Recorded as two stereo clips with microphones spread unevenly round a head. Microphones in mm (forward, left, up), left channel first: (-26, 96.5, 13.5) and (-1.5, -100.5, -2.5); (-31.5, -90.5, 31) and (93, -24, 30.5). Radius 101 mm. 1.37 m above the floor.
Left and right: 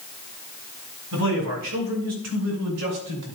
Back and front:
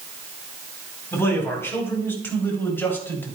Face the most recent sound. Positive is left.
turn(degrees=-75)